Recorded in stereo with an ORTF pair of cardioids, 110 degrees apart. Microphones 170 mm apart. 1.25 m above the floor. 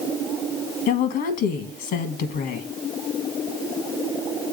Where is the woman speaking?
65° left, 1.4 m.